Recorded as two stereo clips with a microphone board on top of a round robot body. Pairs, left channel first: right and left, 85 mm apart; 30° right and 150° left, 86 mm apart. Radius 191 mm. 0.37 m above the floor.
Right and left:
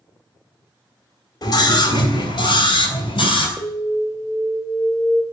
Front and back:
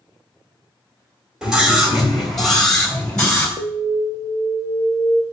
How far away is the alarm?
About 1.5 m.